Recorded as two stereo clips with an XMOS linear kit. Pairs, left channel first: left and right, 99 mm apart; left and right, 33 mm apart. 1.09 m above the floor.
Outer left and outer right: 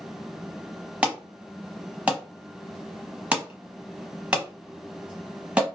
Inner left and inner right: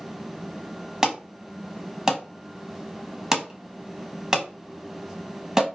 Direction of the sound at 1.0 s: 10° right (ahead or behind).